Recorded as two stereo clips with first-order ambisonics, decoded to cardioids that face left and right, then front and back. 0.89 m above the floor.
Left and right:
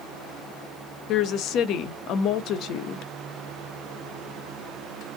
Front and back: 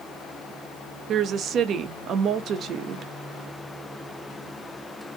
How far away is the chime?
I don't hear a chime.